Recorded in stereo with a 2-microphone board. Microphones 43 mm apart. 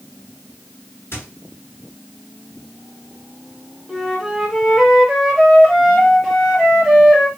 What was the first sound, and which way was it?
A squeak, 65° left (ahead or behind).